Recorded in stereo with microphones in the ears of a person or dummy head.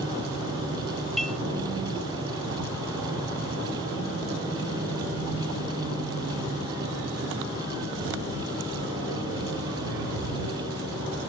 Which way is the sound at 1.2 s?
5° left (ahead or behind).